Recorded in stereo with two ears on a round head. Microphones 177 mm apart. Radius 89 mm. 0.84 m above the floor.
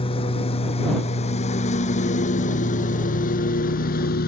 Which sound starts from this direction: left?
A lawn mower, at 0.0 s.